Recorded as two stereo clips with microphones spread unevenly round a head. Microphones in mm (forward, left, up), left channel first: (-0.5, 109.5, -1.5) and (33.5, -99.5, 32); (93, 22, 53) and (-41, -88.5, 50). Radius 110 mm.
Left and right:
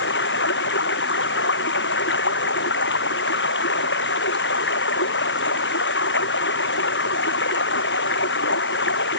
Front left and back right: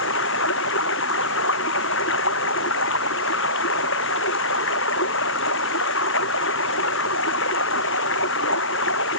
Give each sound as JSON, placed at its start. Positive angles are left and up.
{"t": 0.0, "sound": "running water", "azimuth_deg": 60}